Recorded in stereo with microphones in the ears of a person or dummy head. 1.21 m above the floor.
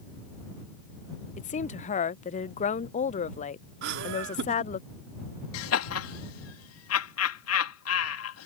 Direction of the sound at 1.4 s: 35° left (ahead or behind).